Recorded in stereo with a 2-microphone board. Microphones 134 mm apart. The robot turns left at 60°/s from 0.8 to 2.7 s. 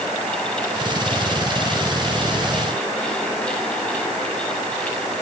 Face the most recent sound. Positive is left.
No sound to turn to.